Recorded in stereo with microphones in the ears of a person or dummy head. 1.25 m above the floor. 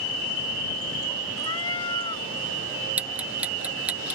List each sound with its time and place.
1.4 s a cat meowing: 20° left (ahead or behind)
3.0 s ticking: 10° right (ahead or behind)